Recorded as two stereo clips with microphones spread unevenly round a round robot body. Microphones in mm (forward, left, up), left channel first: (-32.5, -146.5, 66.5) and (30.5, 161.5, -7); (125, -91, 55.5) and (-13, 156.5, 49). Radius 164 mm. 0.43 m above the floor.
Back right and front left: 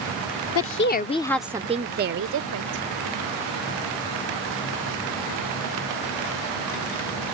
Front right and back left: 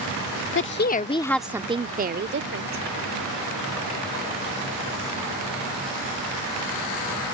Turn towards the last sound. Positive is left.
turn(degrees=85)